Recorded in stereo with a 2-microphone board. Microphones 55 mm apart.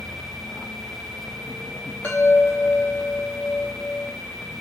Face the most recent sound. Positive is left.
turn(degrees=25)  # may be behind; listen again after turning